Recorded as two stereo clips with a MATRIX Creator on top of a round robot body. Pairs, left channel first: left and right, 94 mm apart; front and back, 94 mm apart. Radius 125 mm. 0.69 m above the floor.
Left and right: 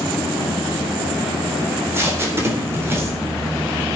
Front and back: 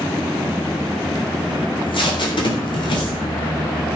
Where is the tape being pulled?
25° right, 3.5 m.